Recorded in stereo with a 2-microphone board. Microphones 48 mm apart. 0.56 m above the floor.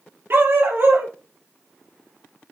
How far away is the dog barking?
About 3 m.